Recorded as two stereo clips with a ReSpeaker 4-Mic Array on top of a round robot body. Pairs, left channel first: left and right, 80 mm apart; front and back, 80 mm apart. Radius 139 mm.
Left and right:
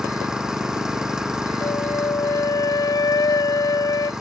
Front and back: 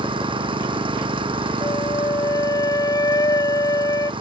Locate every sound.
0.0 s an engine running: 175° right
1.6 s a flute: 45° left